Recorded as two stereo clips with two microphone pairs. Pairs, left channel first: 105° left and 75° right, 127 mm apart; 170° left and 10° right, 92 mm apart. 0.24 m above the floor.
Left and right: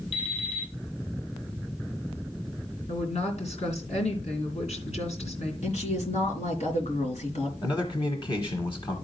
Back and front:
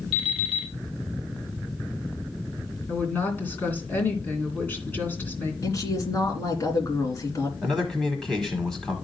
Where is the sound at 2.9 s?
100° left, 2.5 m.